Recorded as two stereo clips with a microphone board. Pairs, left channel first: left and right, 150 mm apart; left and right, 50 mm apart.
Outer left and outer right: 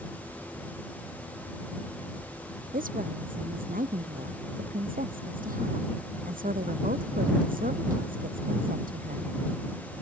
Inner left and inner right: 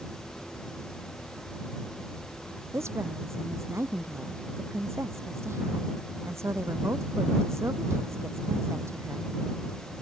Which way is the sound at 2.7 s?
70° right (ahead or behind).